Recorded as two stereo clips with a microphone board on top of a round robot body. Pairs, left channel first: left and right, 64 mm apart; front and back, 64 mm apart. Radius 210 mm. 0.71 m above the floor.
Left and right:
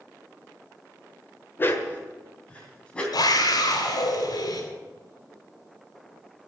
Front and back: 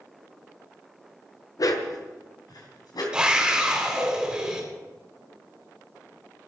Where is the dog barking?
30° left, 1.2 m; by 3.0 s 15° left, 3 m.